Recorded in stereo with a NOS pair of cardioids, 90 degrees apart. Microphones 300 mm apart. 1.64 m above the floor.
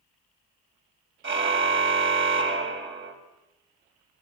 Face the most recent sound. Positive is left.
turn(degrees=-40)